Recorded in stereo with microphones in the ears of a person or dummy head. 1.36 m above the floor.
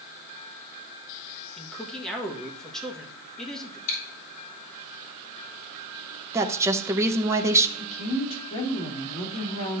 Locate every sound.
1.6 s a man speaking: 5° left (ahead or behind), 1.5 m
3.9 s chewing: 40° left (ahead or behind), 4.5 m
6.3 s a woman speaking: 15° right (ahead or behind), 0.9 m
7.8 s a woman speaking: 35° left (ahead or behind), 2.5 m